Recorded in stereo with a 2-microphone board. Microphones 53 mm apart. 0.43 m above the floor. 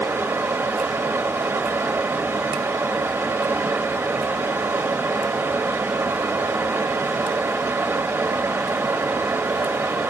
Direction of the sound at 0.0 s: 60° right (ahead or behind).